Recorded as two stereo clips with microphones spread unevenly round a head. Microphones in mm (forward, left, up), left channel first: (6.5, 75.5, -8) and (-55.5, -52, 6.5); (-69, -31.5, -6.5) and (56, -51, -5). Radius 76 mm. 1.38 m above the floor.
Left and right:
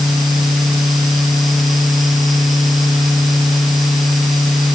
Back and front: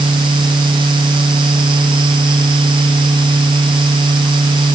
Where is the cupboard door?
No cupboard door in this recording.